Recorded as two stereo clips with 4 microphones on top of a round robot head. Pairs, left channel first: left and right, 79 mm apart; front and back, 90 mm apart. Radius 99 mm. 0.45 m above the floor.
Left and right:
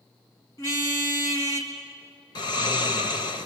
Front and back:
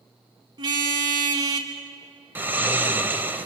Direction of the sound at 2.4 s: 115° left.